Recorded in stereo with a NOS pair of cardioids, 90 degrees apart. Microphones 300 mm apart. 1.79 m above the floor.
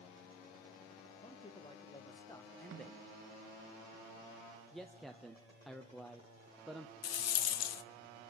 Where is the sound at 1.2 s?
20° left, 3 m; by 3.0 s straight ahead, 1.4 m.